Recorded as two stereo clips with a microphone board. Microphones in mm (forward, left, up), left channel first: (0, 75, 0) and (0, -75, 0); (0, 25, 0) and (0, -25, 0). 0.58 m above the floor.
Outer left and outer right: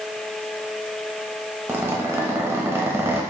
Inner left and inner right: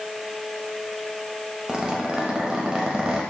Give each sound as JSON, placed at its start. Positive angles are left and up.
{"t": 1.7, "sound": "a zipper", "side_deg": -20, "distance_m": 0.7}